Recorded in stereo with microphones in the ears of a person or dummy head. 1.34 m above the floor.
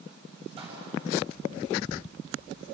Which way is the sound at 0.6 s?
30° right (ahead or behind).